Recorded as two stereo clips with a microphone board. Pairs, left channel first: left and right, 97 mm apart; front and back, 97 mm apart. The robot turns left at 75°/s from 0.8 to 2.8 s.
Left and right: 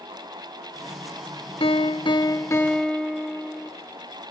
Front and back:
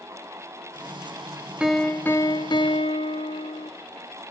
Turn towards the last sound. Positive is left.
turn(degrees=10)